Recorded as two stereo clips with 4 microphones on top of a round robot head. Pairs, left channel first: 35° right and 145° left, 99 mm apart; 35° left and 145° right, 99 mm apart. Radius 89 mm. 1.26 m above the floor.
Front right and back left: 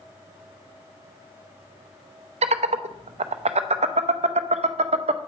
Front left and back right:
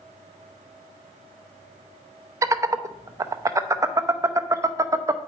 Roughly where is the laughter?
Behind left.